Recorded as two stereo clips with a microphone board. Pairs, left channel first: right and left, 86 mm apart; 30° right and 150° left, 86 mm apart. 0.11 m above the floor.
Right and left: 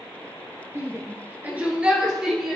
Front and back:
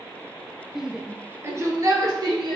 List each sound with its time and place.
0.8 s a shout: 70° left, 1.3 m; by 2.6 s 175° left, 2 m